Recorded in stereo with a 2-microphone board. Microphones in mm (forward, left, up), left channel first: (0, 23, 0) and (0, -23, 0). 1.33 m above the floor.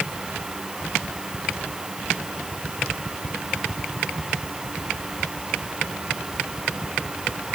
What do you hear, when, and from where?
Only background noise.